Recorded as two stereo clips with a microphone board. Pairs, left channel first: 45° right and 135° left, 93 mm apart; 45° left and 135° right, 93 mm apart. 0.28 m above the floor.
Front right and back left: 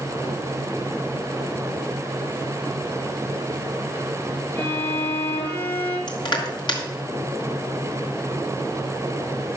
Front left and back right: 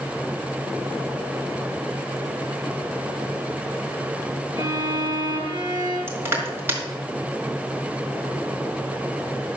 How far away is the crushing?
About 3 m.